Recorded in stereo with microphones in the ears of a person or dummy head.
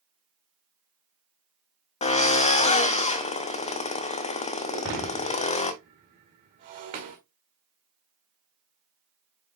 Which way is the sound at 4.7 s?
25° right (ahead or behind).